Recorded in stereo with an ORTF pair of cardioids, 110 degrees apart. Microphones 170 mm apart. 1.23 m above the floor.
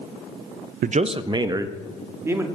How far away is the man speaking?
About 0.6 m.